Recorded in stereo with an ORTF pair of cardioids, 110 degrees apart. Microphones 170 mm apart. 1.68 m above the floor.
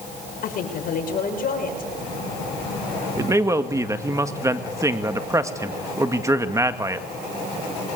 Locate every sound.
0.4 s a woman speaking: 55° left, 6.5 m
3.2 s a man speaking: 20° right, 2 m